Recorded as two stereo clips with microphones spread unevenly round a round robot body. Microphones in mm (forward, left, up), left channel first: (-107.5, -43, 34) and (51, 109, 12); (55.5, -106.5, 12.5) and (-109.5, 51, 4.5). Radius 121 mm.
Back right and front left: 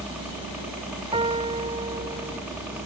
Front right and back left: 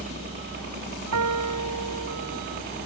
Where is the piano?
110° left.